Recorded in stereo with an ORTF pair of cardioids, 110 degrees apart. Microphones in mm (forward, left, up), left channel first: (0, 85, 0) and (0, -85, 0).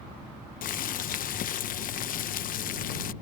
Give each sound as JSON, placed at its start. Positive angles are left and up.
{"t": 0.6, "sound": "boiling", "azimuth_deg": 55}